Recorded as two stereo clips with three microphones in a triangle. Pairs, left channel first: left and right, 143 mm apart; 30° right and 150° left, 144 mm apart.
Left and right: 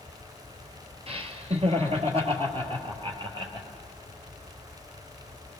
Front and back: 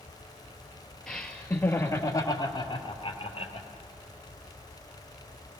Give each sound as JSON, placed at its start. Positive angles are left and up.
{"t": 1.1, "sound": "laughter", "azimuth_deg": -115, "distance_m": 2.0}